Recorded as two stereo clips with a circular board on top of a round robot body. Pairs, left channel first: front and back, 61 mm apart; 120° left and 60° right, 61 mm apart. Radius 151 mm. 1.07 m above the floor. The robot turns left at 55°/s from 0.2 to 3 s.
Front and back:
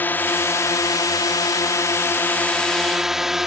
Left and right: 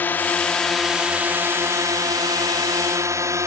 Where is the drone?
60° left; by 3.5 s 95° right.